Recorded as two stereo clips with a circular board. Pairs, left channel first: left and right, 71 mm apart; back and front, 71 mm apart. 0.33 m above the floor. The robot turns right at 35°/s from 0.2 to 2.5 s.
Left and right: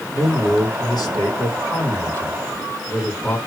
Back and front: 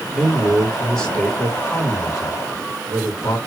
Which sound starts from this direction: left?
A man speaking, at 0.1 s.